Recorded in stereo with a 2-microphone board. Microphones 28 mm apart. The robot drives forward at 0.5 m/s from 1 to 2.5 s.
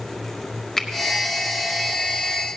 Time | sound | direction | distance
0.8 | a finger snap | 15° left (ahead or behind) | 1.0 m